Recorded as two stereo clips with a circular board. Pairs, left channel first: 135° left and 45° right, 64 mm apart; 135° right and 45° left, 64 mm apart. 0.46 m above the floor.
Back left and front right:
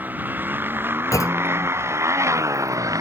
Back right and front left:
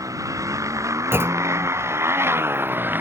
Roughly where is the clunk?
Left.